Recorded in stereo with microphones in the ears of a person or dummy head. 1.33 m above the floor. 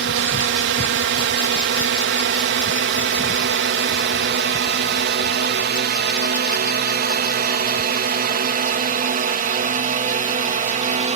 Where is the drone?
60° right (ahead or behind); by 11.2 s 35° right (ahead or behind).